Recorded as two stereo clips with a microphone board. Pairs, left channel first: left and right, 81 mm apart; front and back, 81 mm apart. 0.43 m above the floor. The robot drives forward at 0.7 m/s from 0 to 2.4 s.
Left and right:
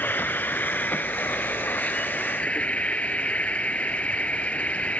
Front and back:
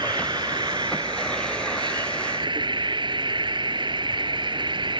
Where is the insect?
155° left; by 5.0 s 165° left.